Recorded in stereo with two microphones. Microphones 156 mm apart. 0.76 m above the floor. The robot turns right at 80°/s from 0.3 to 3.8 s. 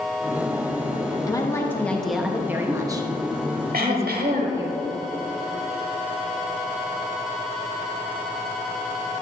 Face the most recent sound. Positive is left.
turn(degrees=-70)  # may be behind; listen again after turning